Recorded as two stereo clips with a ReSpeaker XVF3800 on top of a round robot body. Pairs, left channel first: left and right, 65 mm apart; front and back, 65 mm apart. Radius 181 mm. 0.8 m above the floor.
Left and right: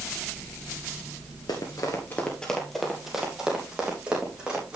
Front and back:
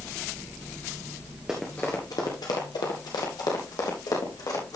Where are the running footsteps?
100° left, 1.0 m; by 4.8 s 15° right, 4 m.